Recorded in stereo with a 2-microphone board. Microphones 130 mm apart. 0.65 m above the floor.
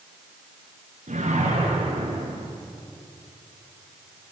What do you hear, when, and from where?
1.1 s a whoosh: 70° right (ahead or behind), 6.5 m